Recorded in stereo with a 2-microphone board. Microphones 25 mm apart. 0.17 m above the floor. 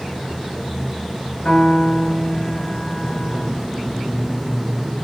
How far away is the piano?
About 1.9 m.